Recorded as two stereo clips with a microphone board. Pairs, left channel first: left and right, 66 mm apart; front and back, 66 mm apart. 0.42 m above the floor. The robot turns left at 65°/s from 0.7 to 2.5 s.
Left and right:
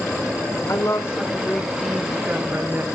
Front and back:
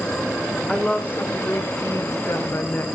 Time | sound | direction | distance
0.7 | a woman speaking | 75° left | 1.2 m